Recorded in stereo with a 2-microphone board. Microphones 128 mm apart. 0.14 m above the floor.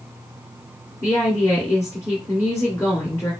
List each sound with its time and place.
1.0 s a woman speaking: 25° left (ahead or behind), 2.5 m